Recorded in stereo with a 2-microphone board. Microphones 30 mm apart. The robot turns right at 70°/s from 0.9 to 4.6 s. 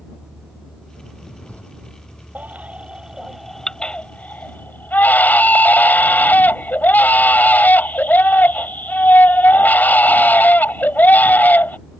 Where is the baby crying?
75° right; by 11.8 s 85° left.